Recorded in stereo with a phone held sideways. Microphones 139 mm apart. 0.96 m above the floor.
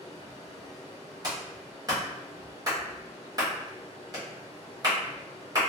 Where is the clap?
30° right (ahead or behind), 1.3 m.